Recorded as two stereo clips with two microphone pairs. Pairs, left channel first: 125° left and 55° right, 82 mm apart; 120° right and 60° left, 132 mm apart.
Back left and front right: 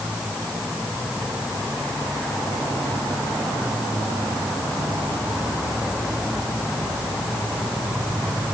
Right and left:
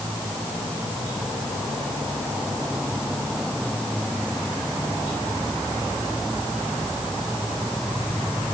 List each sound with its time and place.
Only background noise.